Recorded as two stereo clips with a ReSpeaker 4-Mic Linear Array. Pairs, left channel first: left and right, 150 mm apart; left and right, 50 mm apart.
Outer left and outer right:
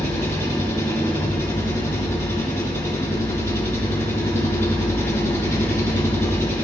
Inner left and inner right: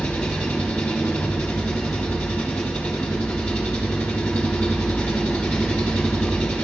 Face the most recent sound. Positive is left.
turn(degrees=20)  # may be behind; listen again after turning